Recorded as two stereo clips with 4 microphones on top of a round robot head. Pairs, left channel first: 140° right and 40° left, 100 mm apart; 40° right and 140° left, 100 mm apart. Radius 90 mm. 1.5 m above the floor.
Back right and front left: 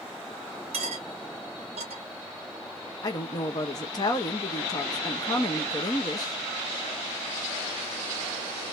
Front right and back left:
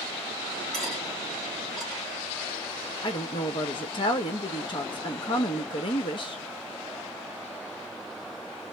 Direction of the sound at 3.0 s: 85° right.